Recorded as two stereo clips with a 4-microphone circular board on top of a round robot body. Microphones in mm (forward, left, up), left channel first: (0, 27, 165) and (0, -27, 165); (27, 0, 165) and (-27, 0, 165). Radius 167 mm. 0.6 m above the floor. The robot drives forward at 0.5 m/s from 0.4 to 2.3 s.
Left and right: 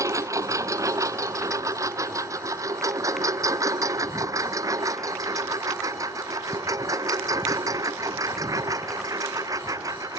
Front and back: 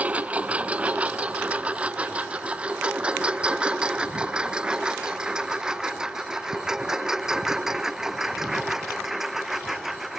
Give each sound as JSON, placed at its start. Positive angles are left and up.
{"t": 0.0, "sound": "a lawn mower", "azimuth_deg": -115}